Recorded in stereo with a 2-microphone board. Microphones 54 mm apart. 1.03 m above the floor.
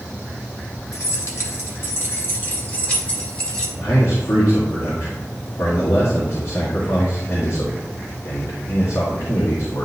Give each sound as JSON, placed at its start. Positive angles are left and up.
{"t": 0.9, "sound": "keys jangling", "side_deg": 70, "distance_m": 1.5}
{"t": 3.8, "sound": "a man speaking", "side_deg": 80, "distance_m": 1.8}